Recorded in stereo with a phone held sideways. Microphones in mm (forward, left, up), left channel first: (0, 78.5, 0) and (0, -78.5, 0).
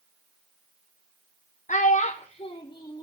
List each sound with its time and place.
1.7 s a child speaking: 55° left (ahead or behind), 0.6 m; by 3.0 s 25° left (ahead or behind), 1.1 m